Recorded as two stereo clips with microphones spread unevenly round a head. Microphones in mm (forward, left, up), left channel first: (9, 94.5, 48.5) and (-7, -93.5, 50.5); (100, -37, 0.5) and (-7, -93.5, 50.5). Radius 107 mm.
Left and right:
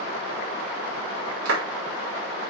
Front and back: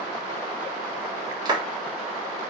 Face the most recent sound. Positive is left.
turn(degrees=-100)